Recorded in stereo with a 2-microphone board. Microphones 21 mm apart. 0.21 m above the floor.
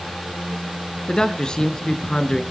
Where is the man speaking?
40° left (ahead or behind), 2.5 m.